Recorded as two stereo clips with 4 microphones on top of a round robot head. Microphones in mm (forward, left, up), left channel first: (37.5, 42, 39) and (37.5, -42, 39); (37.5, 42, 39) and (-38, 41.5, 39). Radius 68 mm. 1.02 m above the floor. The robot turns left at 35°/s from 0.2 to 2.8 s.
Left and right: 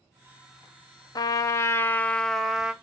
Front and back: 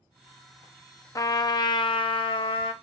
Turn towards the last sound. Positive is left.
turn(degrees=-10)